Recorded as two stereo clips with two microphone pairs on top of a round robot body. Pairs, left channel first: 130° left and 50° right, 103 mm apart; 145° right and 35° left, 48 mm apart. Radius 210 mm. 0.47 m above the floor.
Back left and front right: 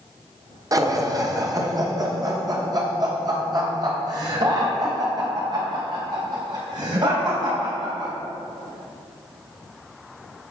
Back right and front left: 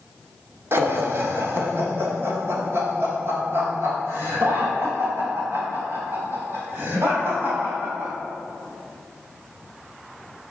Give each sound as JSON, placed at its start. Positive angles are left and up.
{"t": 0.7, "sound": "laughter", "azimuth_deg": 5, "distance_m": 2.0}